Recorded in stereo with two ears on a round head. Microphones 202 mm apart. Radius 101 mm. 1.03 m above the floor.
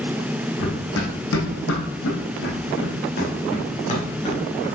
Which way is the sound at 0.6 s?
60° left (ahead or behind).